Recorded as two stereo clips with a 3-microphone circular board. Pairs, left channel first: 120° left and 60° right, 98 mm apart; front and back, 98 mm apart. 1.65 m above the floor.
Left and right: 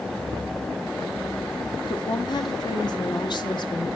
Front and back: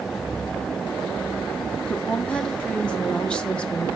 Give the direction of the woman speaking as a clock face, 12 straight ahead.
9 o'clock.